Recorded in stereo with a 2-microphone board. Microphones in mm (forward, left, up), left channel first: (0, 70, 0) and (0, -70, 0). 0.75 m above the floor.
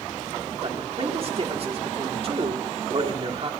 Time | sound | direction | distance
0.6 | a man speaking | 45° right (ahead or behind) | 1.8 m